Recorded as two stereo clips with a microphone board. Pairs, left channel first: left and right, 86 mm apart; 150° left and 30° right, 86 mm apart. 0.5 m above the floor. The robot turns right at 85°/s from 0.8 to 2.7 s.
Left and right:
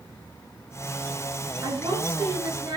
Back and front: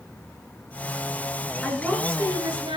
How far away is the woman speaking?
About 7 m.